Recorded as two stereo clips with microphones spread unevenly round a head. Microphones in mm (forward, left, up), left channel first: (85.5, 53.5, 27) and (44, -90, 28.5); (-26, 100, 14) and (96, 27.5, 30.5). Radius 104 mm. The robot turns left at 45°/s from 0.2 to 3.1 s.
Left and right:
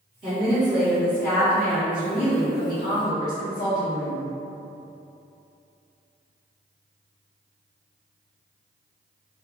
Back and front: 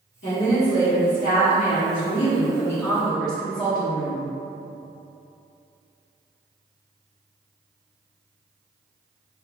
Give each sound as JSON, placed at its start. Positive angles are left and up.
{"t": 0.2, "sound": "a woman speaking", "azimuth_deg": -175, "distance_m": 1.2}